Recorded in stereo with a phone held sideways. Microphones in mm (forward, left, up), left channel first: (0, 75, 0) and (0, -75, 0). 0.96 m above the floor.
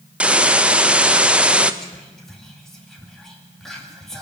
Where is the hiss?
10° right (ahead or behind), 0.6 m.